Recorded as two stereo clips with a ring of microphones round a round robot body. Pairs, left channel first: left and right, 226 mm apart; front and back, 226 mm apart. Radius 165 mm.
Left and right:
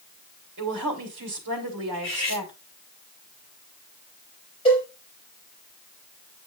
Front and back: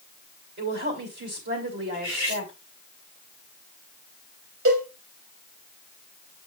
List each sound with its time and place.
0.6 s a woman speaking: 130° right, 2.5 m
1.9 s cutlery clinking: 150° left, 6 m
4.7 s a cowbell: 160° left, 4.5 m